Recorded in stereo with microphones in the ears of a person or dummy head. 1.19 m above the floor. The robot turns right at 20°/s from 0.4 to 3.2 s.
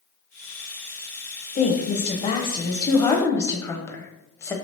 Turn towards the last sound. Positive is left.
turn(degrees=165)